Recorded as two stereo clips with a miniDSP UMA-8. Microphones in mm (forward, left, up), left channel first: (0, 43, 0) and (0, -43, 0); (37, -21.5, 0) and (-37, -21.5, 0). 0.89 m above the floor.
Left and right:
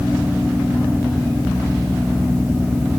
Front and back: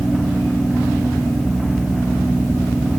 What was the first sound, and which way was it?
Only background noise.